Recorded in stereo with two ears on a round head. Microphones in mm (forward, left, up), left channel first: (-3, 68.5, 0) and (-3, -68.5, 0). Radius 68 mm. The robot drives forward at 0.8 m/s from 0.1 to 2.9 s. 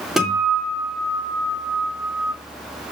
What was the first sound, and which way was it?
A guitar, centre (ahead or behind).